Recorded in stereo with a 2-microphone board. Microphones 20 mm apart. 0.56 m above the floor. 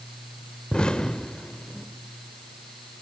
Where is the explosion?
50° left (ahead or behind), 1.1 m.